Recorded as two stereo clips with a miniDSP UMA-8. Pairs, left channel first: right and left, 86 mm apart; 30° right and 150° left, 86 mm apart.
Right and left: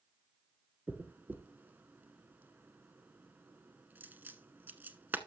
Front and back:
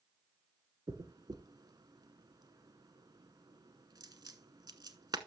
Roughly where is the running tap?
I don't hear a running tap.